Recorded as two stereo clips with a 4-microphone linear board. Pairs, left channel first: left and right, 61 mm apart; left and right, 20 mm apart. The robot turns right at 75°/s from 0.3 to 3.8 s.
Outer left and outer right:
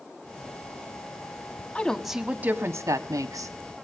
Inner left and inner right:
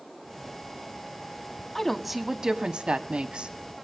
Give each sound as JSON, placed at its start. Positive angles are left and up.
{"t": 1.8, "sound": "a woman speaking", "azimuth_deg": 160, "distance_m": 1.7}